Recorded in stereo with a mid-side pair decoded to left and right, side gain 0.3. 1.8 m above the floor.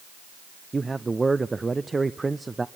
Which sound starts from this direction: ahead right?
A man speaking, at 0.7 s.